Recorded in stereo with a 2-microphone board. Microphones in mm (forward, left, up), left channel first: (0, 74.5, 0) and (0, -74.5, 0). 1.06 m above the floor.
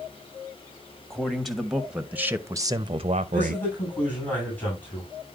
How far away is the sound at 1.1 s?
About 1.4 m.